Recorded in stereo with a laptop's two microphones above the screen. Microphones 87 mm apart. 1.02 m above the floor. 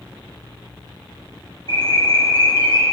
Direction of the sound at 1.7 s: 50° left (ahead or behind).